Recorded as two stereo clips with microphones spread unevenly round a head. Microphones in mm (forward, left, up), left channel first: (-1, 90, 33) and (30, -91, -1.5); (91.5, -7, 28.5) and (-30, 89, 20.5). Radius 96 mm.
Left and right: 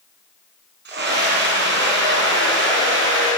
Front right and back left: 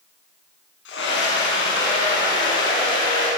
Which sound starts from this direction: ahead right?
A scream, at 0.8 s.